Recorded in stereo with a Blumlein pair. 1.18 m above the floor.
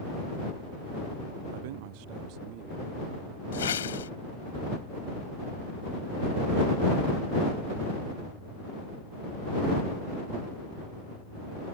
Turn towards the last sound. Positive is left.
turn(degrees=65)